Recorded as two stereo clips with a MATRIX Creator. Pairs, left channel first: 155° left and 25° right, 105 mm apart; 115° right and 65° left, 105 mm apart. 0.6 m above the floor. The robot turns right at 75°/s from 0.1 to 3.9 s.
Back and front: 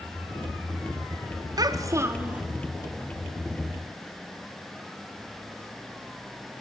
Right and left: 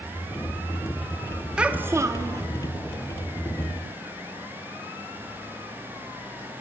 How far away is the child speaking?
About 0.5 m.